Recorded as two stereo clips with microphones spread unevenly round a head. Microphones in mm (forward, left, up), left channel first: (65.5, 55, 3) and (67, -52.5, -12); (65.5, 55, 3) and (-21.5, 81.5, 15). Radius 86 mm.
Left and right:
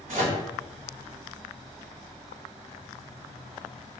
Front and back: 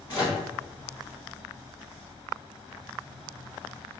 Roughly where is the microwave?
Behind right.